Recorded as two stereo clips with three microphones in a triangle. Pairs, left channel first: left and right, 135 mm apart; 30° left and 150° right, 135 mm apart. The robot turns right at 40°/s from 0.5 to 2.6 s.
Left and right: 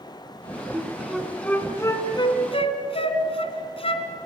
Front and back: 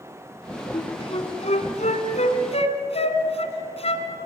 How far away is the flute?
About 2.0 m.